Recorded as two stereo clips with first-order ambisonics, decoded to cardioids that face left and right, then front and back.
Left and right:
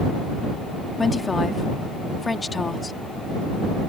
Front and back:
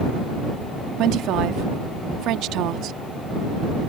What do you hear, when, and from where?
1.0 s a woman speaking: 165° left